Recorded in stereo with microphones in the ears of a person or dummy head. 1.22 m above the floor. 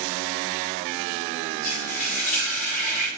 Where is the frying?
40° left (ahead or behind), 1.5 m.